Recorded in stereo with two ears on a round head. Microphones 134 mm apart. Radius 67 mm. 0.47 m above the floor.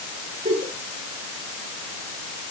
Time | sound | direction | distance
0.5 | a giggle | 45° right (ahead or behind) | 6 m